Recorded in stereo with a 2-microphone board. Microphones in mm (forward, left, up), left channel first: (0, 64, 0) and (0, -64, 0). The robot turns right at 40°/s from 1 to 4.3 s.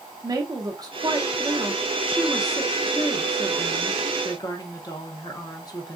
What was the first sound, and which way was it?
A woman speaking, 65° right.